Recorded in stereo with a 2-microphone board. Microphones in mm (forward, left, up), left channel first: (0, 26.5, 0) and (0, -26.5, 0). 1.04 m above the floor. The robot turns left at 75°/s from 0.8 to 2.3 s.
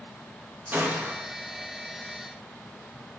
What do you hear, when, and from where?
0.7 s a gunshot: 45° right, 1.7 m; by 1.3 s 80° right, 1.7 m